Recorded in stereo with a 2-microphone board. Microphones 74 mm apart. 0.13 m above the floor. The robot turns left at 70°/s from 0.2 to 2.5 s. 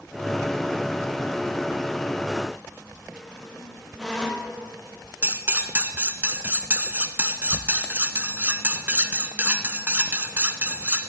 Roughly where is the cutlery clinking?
Right.